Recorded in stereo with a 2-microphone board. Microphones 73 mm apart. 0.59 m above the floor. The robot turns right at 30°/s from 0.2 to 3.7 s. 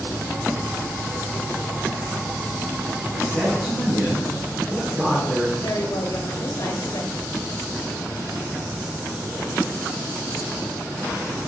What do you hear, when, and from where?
3.1 s a man speaking: 5° left (ahead or behind), 4.5 m; by 5.5 s 10° right (ahead or behind), 4.5 m
5.6 s a woman speaking: 65° left (ahead or behind), 2 m